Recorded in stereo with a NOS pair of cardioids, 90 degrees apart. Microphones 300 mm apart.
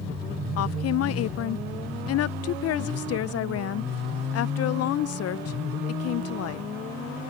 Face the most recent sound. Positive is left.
turn(degrees=55)